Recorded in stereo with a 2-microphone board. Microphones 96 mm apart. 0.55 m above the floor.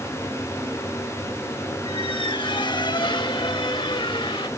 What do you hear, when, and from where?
1.9 s a squeak: 60° left (ahead or behind), 1.0 m